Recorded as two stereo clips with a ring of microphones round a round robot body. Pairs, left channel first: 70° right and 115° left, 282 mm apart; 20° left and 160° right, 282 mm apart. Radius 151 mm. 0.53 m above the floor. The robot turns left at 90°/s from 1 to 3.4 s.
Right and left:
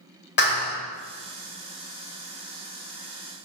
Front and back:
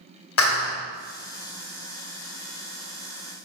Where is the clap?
15° right, 1.9 m.